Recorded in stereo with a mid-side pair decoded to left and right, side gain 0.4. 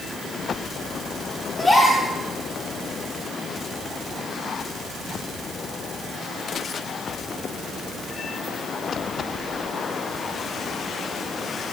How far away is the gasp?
About 3.5 m.